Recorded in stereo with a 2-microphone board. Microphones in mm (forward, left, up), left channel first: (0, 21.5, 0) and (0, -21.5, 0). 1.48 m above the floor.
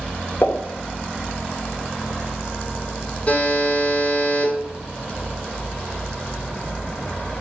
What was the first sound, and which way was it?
A pop, 65° left (ahead or behind).